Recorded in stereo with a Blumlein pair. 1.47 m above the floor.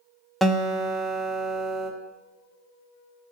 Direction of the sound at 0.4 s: 5° right.